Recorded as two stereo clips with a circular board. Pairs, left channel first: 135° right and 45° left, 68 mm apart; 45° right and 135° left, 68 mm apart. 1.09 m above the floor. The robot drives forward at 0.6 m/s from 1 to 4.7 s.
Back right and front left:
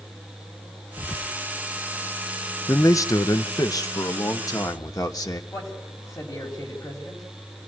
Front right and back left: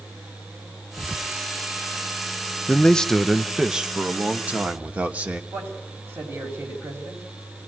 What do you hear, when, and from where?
1.0 s whispering: 135° right, 1.0 m; by 1.4 s 145° right, 1.1 m
2.7 s a man speaking: 110° right, 0.7 m; by 5.4 s 160° right, 1.6 m
5.5 s a man speaking: 170° right, 5.5 m